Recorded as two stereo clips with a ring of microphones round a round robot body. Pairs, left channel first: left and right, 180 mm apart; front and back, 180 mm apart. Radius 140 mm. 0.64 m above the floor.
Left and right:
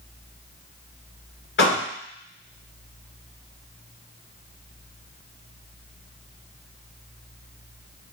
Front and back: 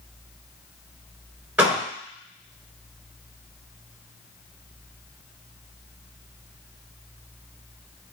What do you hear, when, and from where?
1.6 s a door slam: 100° left, 2.5 m